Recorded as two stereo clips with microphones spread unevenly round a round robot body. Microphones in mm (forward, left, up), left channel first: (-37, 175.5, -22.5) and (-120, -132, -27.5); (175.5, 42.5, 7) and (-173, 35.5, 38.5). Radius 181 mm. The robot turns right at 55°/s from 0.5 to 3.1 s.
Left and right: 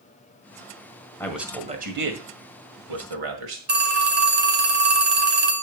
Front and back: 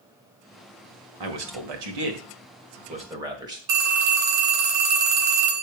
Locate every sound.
1.2 s a man speaking: 160° left, 1.9 m; by 3.6 s 100° right, 1.9 m
3.7 s a phone ringing: 165° right, 3 m